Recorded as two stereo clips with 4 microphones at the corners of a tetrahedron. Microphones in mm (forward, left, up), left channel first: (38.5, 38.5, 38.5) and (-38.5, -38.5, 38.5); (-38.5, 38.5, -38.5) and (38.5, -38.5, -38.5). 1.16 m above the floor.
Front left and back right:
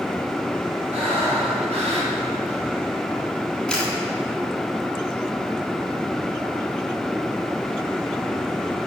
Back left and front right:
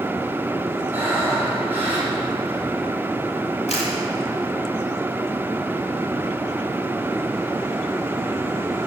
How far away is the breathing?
About 4 m.